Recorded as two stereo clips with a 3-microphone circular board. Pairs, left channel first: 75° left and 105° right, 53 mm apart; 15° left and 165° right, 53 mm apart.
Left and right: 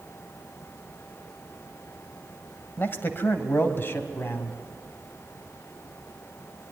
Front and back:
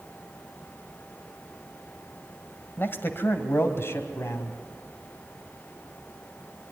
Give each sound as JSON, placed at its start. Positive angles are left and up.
{"t": 2.8, "sound": "a man speaking", "azimuth_deg": 45, "distance_m": 1.7}